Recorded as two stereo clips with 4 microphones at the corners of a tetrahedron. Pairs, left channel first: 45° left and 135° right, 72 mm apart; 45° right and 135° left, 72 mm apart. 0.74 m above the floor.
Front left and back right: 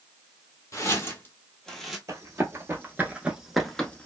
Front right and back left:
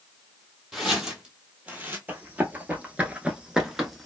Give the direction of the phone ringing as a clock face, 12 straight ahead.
No phone ringing in this recording.